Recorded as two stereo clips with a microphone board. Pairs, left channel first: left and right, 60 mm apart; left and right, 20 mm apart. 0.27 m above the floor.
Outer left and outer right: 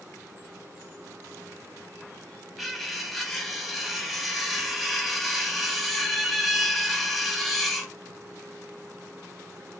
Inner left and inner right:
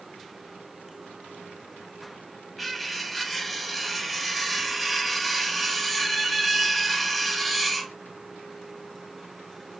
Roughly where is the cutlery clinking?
Centre.